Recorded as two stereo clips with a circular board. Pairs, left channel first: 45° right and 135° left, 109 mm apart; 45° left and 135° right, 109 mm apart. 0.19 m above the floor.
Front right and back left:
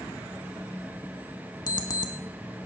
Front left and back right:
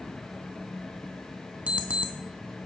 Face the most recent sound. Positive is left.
turn(degrees=-65)